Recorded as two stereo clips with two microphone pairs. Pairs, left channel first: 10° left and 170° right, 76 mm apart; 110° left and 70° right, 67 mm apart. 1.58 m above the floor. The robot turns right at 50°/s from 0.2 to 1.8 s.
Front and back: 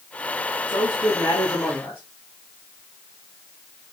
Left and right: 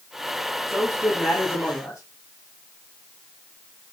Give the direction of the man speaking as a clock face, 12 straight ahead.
12 o'clock.